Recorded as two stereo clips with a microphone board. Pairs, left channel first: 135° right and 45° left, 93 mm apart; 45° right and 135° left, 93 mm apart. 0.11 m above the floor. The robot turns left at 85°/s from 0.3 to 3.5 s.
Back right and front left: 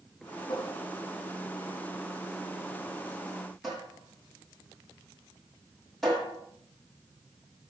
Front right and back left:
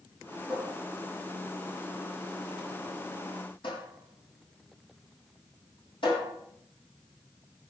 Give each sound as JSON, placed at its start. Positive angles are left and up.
{"t": 0.5, "sound": "a cupboard door", "azimuth_deg": -150, "distance_m": 6.0}